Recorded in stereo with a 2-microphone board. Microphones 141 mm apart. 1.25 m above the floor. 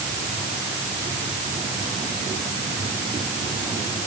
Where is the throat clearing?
No throat clearing in this recording.